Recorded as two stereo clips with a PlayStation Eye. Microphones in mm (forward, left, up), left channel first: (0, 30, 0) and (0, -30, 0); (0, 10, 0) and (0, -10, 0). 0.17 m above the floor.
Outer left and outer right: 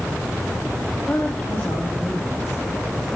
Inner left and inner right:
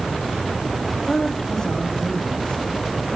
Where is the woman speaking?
25° left (ahead or behind), 5.5 m.